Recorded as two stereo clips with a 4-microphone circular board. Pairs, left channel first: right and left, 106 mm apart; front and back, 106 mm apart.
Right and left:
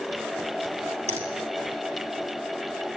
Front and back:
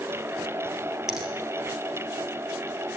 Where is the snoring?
I don't hear snoring.